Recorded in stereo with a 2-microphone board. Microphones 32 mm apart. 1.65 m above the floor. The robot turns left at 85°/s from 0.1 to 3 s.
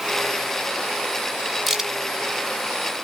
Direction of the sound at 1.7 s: 5° right (ahead or behind).